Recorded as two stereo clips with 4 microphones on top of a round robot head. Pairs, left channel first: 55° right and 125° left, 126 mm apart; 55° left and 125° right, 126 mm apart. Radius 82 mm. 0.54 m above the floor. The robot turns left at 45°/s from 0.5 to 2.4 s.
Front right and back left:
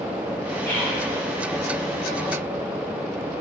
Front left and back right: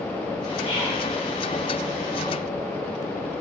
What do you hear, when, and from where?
0.6 s whispering: 5° left, 1.9 m; by 1.0 s 10° right, 1.9 m